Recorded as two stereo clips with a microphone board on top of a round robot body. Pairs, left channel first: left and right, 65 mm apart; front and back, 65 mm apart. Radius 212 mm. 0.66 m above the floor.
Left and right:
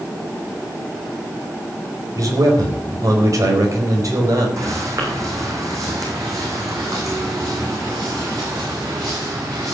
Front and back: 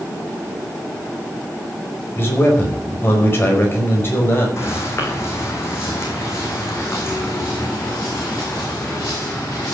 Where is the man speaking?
55° right, 4.5 m.